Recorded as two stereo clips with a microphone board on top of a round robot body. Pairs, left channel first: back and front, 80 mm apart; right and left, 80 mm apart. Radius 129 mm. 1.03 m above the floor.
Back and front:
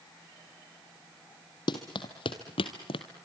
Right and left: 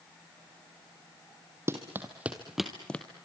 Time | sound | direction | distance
1.7 | running footsteps | 150° left | 2 m